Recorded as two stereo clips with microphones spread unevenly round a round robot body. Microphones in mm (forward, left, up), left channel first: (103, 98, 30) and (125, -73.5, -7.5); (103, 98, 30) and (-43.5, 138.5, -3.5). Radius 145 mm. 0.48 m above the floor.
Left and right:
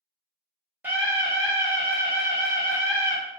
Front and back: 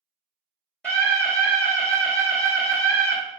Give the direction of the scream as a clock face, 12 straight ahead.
4 o'clock.